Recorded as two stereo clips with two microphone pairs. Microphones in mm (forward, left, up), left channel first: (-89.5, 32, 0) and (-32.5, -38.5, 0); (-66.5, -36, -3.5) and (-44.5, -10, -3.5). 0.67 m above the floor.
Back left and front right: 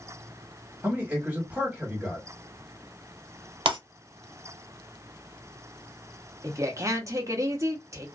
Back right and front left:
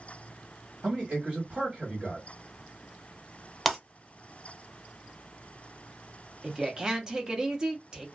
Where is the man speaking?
20° left, 1.4 m.